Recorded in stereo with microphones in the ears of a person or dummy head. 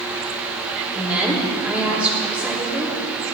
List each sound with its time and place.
0.9 s a woman speaking: 5° right (ahead or behind), 3 m